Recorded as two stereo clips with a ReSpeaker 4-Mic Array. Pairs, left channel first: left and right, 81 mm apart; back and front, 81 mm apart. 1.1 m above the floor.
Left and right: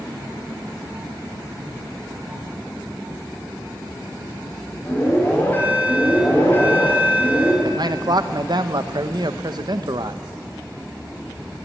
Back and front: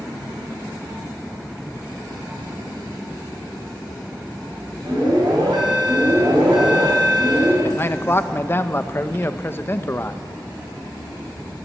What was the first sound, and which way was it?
An alarm, 25° left.